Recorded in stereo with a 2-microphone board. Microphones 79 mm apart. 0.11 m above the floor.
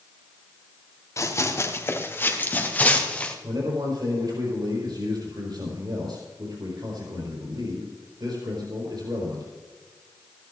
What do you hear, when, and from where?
1.2 s running footsteps: 40° left (ahead or behind), 2.5 m; by 3.3 s 15° left (ahead or behind), 2.5 m
3.4 s a man speaking: 70° right (ahead or behind), 4.5 m